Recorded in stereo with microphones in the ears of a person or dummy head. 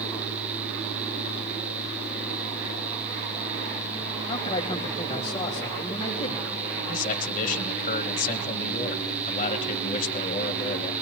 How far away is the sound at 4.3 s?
About 1.7 m.